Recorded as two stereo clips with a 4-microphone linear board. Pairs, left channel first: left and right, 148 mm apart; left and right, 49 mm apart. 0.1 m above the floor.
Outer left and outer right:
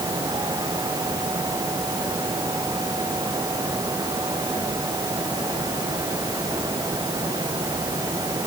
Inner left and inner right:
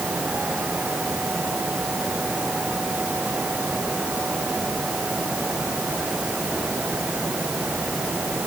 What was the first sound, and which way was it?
Only background noise.